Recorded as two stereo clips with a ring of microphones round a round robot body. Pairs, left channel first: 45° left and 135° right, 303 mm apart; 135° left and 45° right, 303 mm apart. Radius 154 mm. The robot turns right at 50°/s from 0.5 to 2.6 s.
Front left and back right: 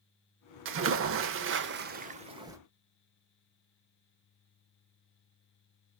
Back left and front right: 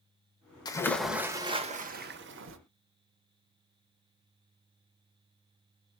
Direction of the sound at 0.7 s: 155° right.